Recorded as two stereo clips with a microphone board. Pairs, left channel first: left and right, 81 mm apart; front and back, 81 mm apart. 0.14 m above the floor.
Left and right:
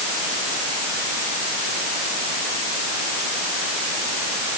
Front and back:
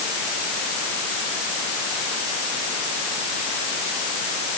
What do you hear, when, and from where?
Only background noise.